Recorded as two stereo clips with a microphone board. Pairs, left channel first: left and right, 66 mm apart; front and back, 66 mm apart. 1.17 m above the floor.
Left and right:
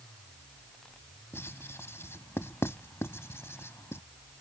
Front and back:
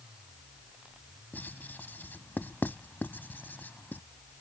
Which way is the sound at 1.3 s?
50° left.